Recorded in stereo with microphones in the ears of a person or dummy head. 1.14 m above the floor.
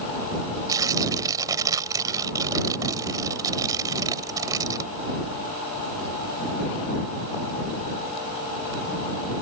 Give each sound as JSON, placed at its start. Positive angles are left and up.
{"t": 0.7, "sound": "tearing paper", "side_deg": -15}